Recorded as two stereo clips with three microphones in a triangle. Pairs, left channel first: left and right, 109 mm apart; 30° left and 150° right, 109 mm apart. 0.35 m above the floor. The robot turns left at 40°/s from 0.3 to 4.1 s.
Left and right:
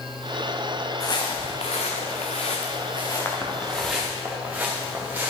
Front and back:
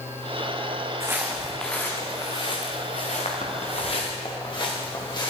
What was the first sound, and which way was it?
Footsteps, 145° left.